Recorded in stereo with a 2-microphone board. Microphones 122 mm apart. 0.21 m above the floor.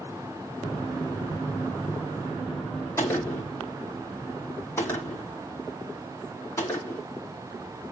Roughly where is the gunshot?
Left.